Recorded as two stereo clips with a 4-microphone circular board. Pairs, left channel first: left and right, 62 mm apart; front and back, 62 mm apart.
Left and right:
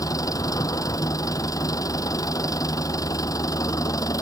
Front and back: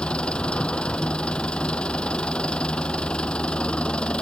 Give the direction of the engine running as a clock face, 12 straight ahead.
10 o'clock.